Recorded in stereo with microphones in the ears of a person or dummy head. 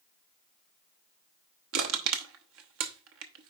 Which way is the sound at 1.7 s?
75° right (ahead or behind).